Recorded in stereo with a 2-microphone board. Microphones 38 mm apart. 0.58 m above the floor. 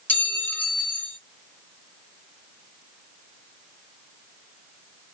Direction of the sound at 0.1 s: 40° left (ahead or behind).